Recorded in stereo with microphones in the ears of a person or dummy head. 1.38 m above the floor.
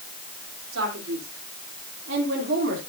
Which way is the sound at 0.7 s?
85° right.